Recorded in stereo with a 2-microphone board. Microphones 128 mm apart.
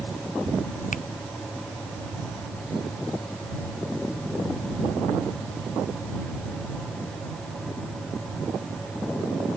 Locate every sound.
0.9 s a finger snap: 85° left